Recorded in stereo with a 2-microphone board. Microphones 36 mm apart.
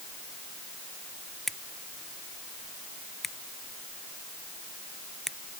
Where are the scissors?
5° left (ahead or behind).